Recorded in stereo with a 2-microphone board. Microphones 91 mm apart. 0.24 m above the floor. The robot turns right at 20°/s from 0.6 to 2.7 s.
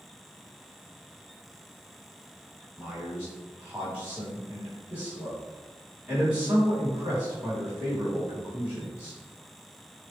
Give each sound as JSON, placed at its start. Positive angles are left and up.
{"t": 2.8, "sound": "a man speaking", "side_deg": -15, "distance_m": 1.7}